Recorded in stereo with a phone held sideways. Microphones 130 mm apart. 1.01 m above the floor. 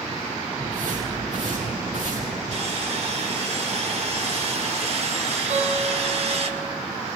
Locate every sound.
0.6 s footsteps: 70° right (ahead or behind), 7.5 m; by 2.4 s 80° right, 8 m
2.5 s sawing: 55° right (ahead or behind), 2.5 m
5.5 s a guitar: 60° right (ahead or behind), 6 m